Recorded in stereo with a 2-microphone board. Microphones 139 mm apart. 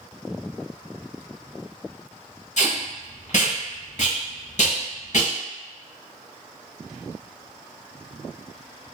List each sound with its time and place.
2.6 s tape being pulled: 60° left (ahead or behind), 0.8 m